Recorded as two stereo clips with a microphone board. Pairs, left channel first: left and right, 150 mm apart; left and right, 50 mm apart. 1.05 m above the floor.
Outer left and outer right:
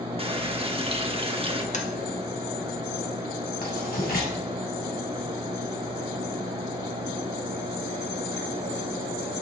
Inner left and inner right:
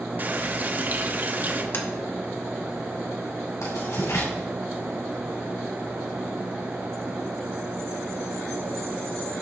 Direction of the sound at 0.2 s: 35° right (ahead or behind).